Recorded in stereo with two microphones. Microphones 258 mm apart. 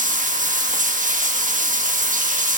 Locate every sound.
0.0 s running water: 30° right (ahead or behind), 1.3 m